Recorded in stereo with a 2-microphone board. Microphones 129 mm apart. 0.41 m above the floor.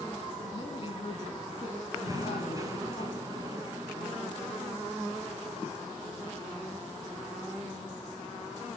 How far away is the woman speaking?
About 4 m.